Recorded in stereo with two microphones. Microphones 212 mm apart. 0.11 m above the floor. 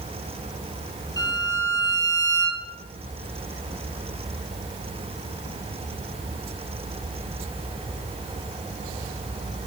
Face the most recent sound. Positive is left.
turn(degrees=15)  # may be behind; listen again after turning